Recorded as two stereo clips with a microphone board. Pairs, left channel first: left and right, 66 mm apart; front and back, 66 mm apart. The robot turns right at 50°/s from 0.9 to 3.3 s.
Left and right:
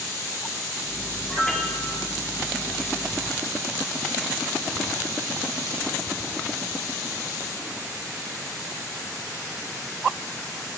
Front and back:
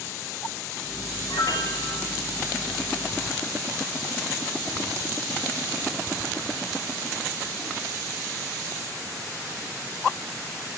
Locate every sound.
1.3 s a piano: straight ahead, 2.5 m; by 2.1 s 40° left, 2.5 m